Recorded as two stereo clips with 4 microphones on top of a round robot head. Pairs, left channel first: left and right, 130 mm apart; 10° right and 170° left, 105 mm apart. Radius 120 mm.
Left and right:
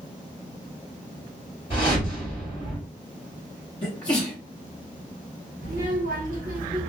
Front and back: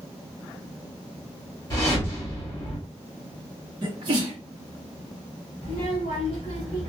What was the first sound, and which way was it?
A whoosh, 45° left.